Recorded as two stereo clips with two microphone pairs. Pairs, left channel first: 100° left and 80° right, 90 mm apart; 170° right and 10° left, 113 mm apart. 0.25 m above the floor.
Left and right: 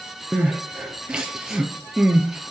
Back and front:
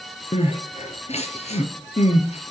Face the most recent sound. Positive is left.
turn(degrees=-160)